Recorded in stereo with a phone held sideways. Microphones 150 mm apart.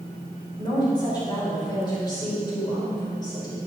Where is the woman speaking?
30° left (ahead or behind), 5 m.